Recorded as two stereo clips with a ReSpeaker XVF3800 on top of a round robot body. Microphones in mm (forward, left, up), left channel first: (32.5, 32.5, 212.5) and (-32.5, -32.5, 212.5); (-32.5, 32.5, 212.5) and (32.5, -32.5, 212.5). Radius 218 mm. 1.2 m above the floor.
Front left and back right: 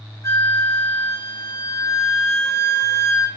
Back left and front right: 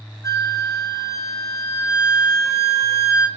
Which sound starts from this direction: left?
A flute, at 0.2 s.